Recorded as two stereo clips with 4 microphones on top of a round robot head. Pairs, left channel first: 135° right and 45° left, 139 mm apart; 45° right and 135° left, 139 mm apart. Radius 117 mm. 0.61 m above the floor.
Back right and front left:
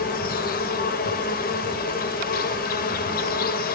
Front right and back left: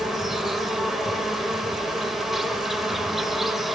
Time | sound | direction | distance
0.0 | an insect | 140° right | 1.1 m